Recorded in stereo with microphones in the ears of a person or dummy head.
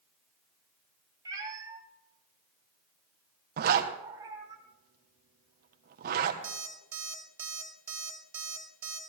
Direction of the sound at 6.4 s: 10° right (ahead or behind).